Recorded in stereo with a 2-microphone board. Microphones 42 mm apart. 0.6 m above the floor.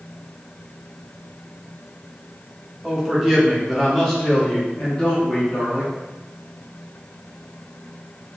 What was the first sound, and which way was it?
A man speaking, 10° right (ahead or behind).